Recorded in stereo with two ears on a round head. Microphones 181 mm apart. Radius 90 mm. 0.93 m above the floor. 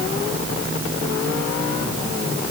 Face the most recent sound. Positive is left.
No sound to turn to.